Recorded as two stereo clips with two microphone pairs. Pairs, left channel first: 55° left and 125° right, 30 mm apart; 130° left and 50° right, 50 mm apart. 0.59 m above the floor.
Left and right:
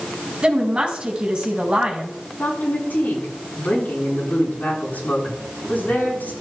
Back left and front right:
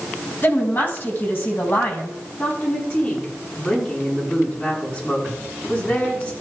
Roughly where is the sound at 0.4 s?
Behind.